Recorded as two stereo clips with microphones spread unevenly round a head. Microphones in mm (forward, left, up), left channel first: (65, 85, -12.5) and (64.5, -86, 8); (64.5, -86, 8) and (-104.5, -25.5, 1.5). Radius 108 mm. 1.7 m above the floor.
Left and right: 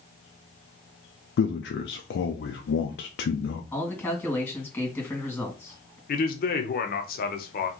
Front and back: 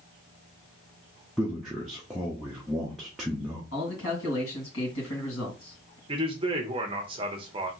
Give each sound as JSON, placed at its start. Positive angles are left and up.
{"t": 1.4, "sound": "a man speaking", "azimuth_deg": 70, "distance_m": 0.6}
{"t": 3.7, "sound": "a man speaking", "azimuth_deg": 10, "distance_m": 2.5}
{"t": 6.1, "sound": "a man speaking", "azimuth_deg": 105, "distance_m": 0.8}